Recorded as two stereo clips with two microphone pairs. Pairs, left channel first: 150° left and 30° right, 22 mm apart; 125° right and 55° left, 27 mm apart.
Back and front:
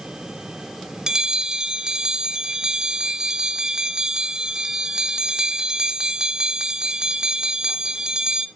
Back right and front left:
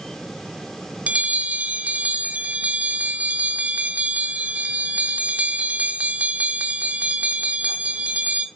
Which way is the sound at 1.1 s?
25° left.